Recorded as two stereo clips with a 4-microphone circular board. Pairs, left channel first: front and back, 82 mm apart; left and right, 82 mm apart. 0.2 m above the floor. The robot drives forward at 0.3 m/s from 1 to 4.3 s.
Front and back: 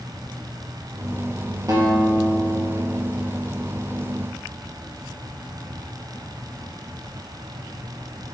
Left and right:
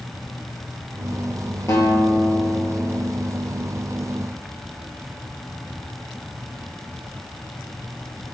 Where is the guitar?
140° left, 2.5 m; by 3.1 s 145° left, 2.5 m.